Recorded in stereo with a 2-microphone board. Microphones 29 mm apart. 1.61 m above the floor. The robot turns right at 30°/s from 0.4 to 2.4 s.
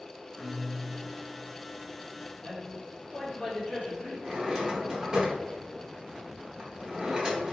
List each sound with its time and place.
0.4 s a guitar: 25° right, 1.8 m; by 1.5 s 5° left, 1.8 m
2.4 s a man speaking: 55° left (ahead or behind), 1.6 m
4.2 s a drawer: 15° right (ahead or behind), 0.9 m